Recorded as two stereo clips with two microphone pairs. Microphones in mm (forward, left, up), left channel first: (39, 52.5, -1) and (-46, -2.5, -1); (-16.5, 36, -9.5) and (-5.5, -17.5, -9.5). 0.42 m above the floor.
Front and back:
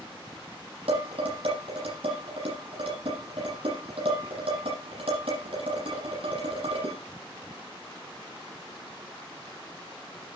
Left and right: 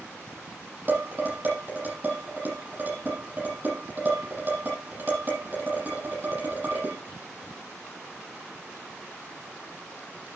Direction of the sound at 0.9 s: 130° right.